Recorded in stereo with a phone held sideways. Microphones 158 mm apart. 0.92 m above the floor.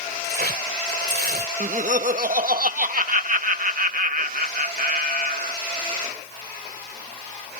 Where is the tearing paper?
75° right (ahead or behind).